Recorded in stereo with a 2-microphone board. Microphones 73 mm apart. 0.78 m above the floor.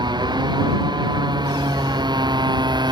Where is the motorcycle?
85° right.